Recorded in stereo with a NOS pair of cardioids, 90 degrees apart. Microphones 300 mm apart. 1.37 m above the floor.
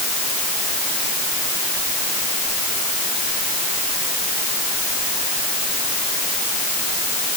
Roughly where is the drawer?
No drawer in this recording.